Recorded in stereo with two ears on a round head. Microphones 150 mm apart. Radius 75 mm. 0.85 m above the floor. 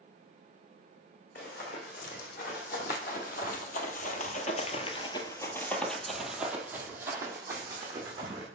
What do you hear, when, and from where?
1.4 s running footsteps: 55° left (ahead or behind), 2.5 m; by 8.5 s 25° right (ahead or behind), 2.5 m